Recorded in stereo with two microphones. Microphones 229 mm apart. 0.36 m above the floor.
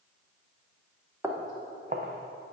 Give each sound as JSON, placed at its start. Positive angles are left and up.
{"t": 1.2, "sound": "footsteps", "side_deg": -10, "distance_m": 1.5}